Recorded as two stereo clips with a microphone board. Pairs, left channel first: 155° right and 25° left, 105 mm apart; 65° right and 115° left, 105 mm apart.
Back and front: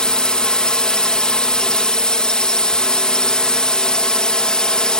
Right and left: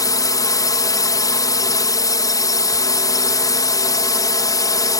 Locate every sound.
0.0 s a drone: 80° right